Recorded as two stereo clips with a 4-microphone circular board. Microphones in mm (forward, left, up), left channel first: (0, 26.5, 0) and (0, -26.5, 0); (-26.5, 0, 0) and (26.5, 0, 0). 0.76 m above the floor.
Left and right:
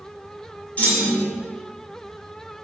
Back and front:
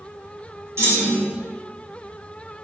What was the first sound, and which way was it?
A clunk, 30° left.